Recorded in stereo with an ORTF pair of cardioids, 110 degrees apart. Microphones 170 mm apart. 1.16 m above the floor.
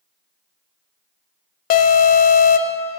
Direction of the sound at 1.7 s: 55° left.